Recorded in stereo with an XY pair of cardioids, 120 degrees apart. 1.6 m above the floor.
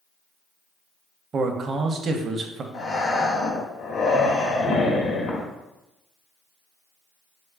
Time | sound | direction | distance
1.3 | a man speaking | 45° right | 0.6 m
2.7 | breathing | 65° left | 1.1 m